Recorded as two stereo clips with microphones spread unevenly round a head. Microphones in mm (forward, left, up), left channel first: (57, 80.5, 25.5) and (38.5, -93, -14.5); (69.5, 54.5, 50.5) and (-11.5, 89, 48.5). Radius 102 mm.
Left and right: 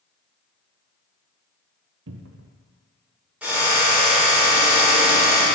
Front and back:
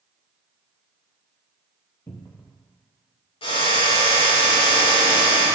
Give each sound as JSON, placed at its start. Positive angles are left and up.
{"t": 2.1, "sound": "a cupboard door", "azimuth_deg": -100, "distance_m": 1.2}
{"t": 3.4, "sound": "a drill", "azimuth_deg": -15, "distance_m": 5.5}